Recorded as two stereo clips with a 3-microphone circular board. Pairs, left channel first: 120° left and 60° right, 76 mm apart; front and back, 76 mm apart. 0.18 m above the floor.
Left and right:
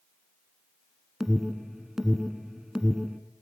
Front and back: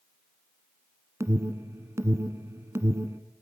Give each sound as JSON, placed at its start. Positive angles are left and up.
{"t": 1.2, "sound": "an alarm", "azimuth_deg": -145, "distance_m": 1.4}